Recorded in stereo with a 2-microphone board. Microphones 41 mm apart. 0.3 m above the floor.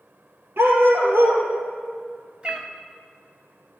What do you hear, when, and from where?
0.6 s a dog barking: 70° right (ahead or behind), 2.5 m
2.4 s a cat meowing: 25° right (ahead or behind), 1.0 m